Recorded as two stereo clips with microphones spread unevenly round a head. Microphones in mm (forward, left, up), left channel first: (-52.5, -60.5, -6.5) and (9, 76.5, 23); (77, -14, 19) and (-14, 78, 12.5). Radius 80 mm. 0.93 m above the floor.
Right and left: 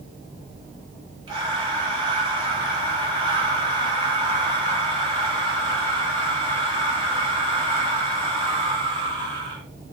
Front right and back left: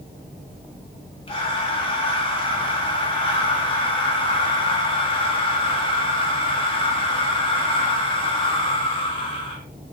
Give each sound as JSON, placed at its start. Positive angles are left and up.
{"t": 1.3, "sound": "breathing", "azimuth_deg": 0, "distance_m": 1.4}